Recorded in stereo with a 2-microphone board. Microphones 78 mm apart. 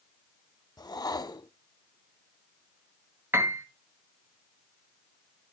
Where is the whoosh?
60° left (ahead or behind), 0.5 m.